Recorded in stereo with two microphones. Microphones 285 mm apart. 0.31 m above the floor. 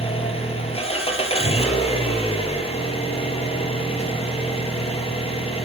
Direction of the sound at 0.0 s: 20° left (ahead or behind).